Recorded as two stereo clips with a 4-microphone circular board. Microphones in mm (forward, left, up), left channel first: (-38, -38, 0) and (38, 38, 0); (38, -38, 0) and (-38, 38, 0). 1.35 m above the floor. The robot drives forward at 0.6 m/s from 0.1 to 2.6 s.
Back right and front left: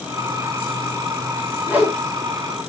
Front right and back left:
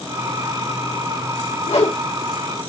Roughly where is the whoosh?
Ahead right.